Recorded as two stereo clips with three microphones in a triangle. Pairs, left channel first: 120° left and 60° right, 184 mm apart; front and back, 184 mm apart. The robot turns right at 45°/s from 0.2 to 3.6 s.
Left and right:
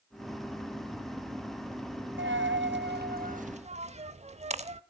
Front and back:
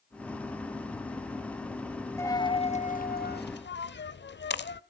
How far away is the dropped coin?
About 0.6 m.